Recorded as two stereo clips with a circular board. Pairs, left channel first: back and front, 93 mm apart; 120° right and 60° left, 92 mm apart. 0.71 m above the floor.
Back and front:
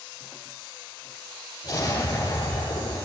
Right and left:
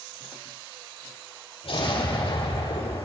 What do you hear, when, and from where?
1.6 s an explosion: 125° right, 9 m